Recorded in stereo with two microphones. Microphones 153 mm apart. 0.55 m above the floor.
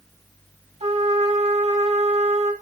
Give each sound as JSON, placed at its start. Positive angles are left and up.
{"t": 0.8, "sound": "a trumpet", "side_deg": -45, "distance_m": 2.5}